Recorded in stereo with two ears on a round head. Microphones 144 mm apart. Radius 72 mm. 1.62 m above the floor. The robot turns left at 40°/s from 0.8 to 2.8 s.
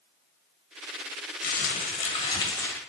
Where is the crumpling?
70° left, 1.3 m; by 2.8 s 15° left, 1.3 m.